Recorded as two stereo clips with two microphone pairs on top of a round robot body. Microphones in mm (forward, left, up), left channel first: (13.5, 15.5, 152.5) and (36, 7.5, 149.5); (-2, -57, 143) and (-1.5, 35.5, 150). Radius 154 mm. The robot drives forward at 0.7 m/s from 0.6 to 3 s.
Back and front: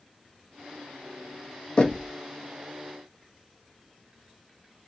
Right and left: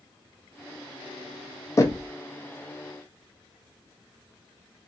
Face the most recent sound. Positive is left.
turn(degrees=-160)